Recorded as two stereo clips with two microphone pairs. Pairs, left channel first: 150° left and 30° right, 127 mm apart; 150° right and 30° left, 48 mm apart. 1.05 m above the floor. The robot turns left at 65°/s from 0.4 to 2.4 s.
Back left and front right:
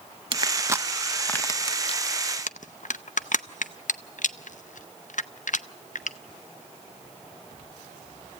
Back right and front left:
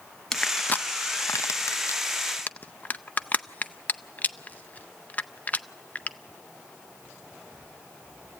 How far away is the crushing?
About 0.5 m.